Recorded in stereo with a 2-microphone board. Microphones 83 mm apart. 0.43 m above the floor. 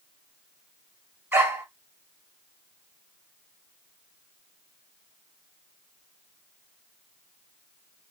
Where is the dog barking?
25° right (ahead or behind), 2.0 m.